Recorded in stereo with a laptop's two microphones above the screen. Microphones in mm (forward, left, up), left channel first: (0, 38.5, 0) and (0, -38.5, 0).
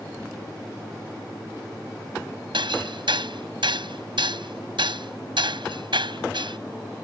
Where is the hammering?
80° right.